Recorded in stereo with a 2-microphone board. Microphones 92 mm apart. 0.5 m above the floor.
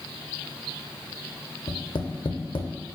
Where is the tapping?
60° left (ahead or behind), 0.5 m.